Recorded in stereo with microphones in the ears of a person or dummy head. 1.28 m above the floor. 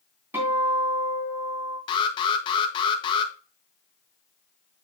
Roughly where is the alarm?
Left.